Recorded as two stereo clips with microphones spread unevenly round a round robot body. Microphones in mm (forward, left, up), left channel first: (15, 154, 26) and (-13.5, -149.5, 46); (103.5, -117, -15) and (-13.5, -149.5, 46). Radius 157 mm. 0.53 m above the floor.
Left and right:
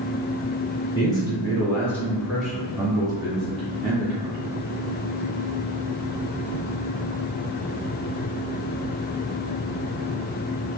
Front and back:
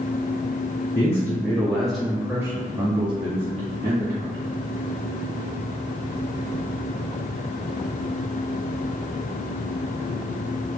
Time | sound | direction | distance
0.9 | a man speaking | 15° left | 1.5 m